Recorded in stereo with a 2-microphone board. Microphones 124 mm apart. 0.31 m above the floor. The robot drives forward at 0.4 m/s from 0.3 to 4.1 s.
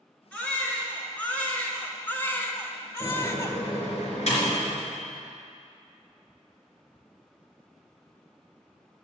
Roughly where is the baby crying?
Centre.